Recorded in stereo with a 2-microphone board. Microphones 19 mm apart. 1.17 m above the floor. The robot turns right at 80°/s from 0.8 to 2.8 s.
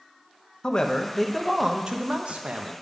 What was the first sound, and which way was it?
A man speaking, 145° left.